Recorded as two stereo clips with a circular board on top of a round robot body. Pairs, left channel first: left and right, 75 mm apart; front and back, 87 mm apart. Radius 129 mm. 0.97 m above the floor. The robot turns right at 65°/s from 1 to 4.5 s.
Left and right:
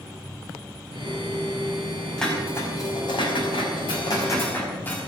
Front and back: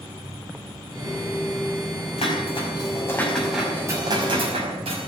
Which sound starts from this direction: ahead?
Dishes clattering, at 2.2 s.